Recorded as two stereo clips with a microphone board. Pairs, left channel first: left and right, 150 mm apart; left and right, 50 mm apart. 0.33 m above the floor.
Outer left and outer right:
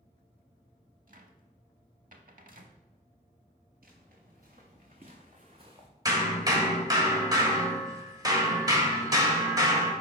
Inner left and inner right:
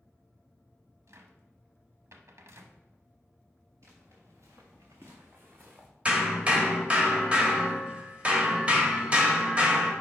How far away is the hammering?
About 1.2 m.